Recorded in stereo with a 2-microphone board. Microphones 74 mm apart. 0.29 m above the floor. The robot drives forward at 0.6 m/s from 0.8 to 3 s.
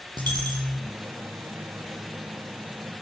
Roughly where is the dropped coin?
Right.